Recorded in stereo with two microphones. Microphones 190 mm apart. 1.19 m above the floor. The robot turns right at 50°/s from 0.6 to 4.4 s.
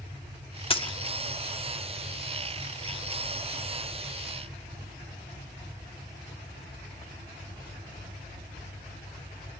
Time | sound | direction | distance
0.7 | a dropped coin | 30° left (ahead or behind) | 0.5 m